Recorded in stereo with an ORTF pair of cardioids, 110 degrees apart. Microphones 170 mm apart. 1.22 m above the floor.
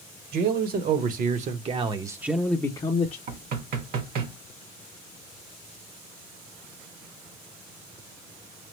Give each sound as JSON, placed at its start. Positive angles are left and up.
{"t": 0.3, "sound": "a man speaking", "azimuth_deg": -65, "distance_m": 1.3}
{"t": 3.3, "sound": "knocking", "azimuth_deg": -65, "distance_m": 1.1}